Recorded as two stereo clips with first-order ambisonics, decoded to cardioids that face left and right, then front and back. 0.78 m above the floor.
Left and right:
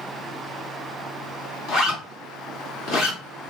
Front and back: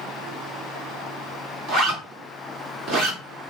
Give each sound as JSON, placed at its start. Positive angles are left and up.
{"t": 1.7, "sound": "a zipper", "azimuth_deg": 135, "distance_m": 1.2}